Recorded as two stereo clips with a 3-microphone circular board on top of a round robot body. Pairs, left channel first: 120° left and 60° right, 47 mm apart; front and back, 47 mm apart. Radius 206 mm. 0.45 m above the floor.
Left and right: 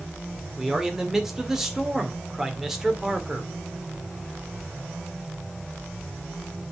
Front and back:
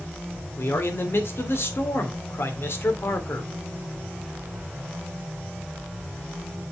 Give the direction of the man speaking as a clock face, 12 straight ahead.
11 o'clock.